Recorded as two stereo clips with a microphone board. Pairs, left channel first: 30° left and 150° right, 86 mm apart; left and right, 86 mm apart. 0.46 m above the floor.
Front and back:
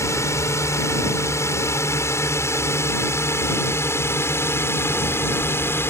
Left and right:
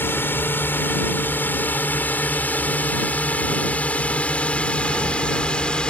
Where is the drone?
45° left; by 5.9 s 25° left.